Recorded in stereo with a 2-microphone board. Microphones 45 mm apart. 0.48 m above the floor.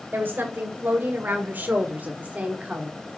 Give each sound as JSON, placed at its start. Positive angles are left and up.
{"t": 0.1, "sound": "a woman speaking", "side_deg": -45, "distance_m": 2.5}